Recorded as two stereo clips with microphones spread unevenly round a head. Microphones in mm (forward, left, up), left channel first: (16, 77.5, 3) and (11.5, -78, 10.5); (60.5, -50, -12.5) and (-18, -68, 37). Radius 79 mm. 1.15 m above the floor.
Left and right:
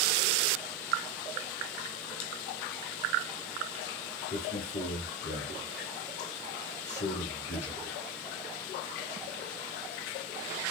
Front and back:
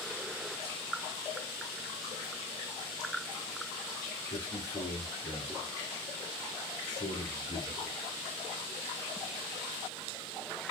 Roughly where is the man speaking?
Ahead left.